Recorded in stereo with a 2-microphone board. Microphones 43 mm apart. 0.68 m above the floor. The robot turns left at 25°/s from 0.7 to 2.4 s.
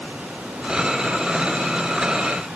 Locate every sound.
Only background noise.